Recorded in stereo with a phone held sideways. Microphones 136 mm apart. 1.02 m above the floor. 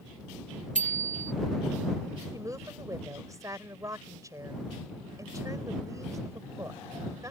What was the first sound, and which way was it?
A bicycle bell, 65° right (ahead or behind).